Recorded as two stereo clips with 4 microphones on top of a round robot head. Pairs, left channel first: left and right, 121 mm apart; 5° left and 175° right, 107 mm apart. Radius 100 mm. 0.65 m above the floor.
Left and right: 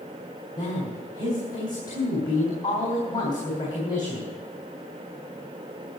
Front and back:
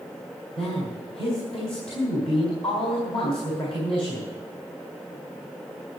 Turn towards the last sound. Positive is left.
turn(degrees=35)